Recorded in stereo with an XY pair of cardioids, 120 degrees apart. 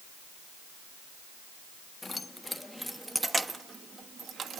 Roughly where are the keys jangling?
Ahead.